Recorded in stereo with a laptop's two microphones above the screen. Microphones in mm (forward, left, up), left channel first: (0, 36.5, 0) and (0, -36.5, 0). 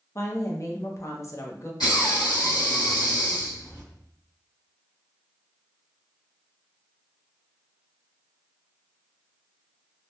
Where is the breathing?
75° left (ahead or behind), 1.5 m.